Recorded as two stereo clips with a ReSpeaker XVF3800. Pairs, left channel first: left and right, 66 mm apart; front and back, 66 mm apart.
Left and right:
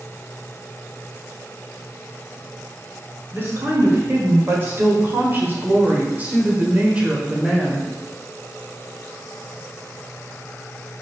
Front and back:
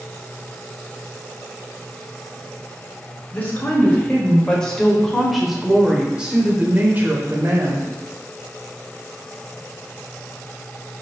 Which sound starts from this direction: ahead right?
A woman speaking, at 3.3 s.